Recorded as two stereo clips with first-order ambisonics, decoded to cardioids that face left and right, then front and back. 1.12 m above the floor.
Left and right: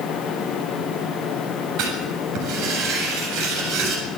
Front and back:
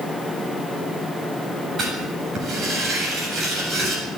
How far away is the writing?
About 7.5 m.